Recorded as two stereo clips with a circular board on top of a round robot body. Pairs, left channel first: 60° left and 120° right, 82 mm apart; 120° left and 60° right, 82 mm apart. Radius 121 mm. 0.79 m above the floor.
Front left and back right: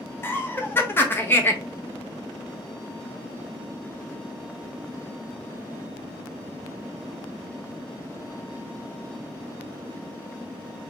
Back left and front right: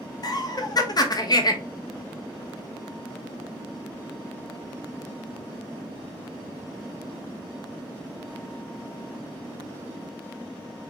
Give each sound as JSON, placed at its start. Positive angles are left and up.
{"t": 0.2, "sound": "laughter", "azimuth_deg": 115, "distance_m": 1.1}